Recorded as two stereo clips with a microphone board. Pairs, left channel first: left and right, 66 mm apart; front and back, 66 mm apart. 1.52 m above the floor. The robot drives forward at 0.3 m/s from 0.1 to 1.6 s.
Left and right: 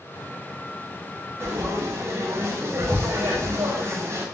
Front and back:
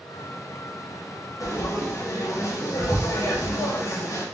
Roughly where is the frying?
Ahead right.